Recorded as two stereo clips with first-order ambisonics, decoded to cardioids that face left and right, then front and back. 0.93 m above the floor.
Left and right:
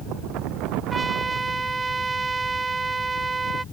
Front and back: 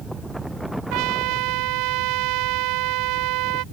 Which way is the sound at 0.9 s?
165° right.